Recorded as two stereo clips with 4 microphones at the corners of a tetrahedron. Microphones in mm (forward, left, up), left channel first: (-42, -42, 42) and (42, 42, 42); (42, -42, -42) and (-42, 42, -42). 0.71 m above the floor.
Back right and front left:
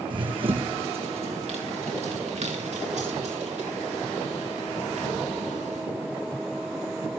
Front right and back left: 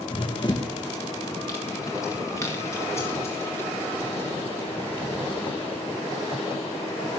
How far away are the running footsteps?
About 2 m.